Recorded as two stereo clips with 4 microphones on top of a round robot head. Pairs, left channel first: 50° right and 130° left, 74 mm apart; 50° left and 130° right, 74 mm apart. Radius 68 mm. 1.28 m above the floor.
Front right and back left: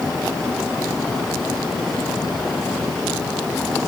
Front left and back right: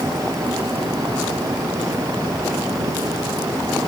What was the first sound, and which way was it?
Only background noise.